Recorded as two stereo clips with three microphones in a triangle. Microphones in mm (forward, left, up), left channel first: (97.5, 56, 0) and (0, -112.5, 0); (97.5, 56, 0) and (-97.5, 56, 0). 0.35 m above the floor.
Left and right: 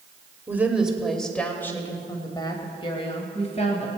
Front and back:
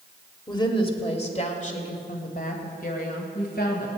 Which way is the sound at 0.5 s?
50° right.